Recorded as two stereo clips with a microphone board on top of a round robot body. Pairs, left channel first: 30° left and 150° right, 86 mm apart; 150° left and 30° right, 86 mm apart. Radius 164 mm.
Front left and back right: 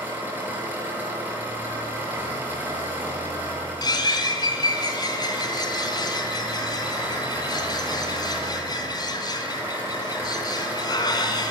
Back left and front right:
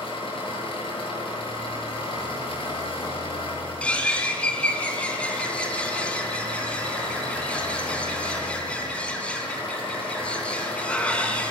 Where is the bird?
70° left, 3.5 m.